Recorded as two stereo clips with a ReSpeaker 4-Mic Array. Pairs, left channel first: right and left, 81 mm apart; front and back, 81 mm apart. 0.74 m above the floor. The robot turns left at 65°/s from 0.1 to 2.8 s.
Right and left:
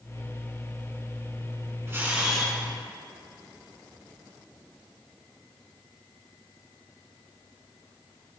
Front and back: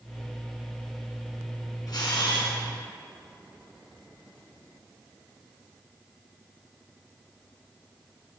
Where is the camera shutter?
35° left, 1.8 m; by 2.5 s 10° right, 1.8 m.